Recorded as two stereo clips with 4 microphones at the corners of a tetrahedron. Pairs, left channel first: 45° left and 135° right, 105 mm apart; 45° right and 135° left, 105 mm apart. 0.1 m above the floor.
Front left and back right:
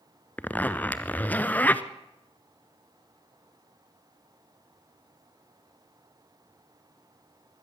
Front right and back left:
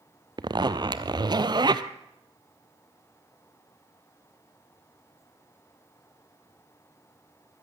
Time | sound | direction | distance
0.4 | a zipper | 115° left | 0.9 m